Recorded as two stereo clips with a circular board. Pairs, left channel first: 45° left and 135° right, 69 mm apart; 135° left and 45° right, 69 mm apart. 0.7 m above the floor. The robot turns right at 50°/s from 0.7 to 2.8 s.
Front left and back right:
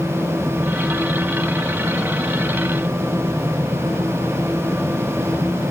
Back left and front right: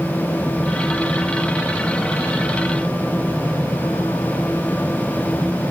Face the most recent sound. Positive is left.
No sound to turn to.